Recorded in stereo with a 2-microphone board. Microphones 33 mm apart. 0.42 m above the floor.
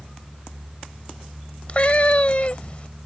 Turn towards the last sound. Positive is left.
turn(degrees=40)  # may be behind; listen again after turning